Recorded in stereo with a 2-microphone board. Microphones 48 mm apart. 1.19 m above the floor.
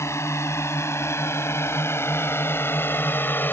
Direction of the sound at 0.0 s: 70° left (ahead or behind).